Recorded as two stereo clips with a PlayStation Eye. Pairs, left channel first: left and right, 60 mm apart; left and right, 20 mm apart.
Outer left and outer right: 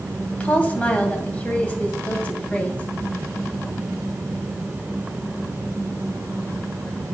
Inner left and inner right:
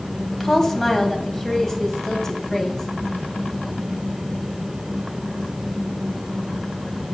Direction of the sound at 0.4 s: 20° left (ahead or behind).